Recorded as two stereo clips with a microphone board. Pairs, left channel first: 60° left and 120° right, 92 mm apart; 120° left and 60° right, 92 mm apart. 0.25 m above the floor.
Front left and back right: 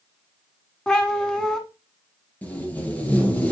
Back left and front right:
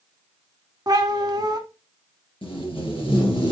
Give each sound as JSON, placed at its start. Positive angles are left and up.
{"t": 0.9, "sound": "a cat meowing", "azimuth_deg": -20, "distance_m": 1.3}
{"t": 2.4, "sound": "tape being pulled", "azimuth_deg": 135, "distance_m": 3.5}